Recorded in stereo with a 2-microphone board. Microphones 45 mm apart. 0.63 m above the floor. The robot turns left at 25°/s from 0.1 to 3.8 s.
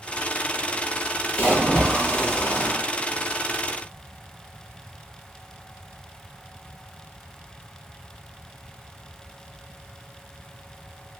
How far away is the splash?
About 1.2 m.